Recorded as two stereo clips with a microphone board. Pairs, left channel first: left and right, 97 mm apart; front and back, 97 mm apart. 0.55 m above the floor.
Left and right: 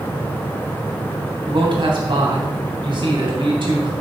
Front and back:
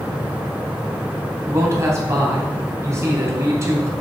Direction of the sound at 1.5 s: 120° right.